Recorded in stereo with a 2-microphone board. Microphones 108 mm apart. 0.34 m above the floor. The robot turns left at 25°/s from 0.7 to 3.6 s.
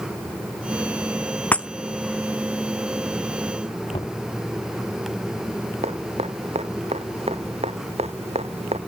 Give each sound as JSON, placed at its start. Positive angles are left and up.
{"t": 1.5, "sound": "breaking glass", "side_deg": 15}
{"t": 3.9, "sound": "knocking", "side_deg": 55}
{"t": 5.8, "sound": "dripping", "side_deg": -75}